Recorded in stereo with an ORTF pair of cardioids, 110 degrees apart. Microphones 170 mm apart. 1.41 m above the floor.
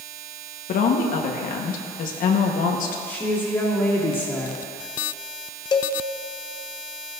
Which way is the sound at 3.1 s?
5° left.